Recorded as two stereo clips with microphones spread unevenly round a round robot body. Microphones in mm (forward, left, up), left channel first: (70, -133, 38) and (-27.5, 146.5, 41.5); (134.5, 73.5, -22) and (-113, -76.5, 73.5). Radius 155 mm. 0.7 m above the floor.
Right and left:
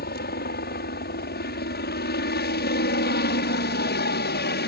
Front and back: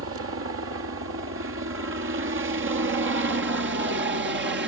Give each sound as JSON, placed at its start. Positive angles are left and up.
{"t": 0.0, "sound": "a helicopter", "azimuth_deg": -110}